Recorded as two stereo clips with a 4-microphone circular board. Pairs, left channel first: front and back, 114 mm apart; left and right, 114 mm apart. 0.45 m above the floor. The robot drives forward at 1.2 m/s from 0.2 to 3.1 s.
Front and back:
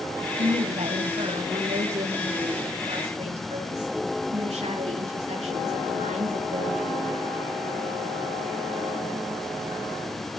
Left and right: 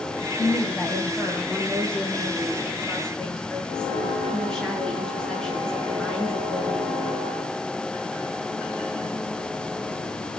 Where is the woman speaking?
170° left, 2.5 m; by 7.2 s 175° left, 6 m.